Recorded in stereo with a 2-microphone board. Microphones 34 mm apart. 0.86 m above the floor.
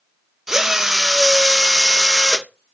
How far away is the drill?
About 0.6 m.